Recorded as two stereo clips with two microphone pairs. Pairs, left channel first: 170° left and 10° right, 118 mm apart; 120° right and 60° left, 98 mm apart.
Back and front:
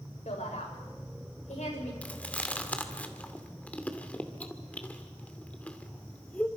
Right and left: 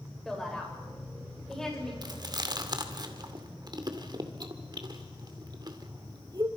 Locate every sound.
0.2 s a woman speaking: 155° left, 7.5 m
2.0 s chewing: 90° left, 2 m